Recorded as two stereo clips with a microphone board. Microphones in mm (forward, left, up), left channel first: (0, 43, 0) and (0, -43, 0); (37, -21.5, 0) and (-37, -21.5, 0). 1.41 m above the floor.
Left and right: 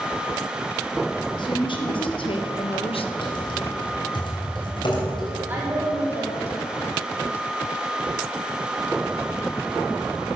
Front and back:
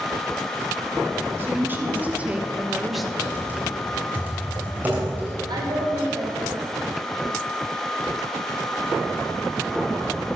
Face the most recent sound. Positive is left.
turn(degrees=-160)